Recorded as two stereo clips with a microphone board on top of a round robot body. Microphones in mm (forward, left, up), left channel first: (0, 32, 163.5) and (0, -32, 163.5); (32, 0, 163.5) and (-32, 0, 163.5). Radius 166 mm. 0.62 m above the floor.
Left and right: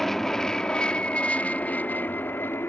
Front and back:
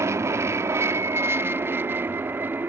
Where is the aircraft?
175° left; by 2.7 s 130° left.